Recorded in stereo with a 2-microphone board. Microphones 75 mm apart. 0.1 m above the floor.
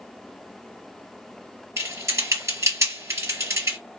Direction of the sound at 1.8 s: 45° right (ahead or behind).